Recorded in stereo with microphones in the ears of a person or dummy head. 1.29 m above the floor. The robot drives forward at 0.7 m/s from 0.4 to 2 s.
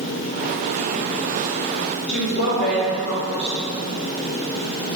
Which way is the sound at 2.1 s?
80° left.